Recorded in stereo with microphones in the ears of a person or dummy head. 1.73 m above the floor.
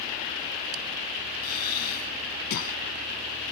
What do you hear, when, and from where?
1.4 s breathing: 55° left (ahead or behind)